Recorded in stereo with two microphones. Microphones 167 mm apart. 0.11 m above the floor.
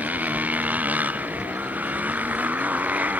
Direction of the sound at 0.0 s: 10° right (ahead or behind).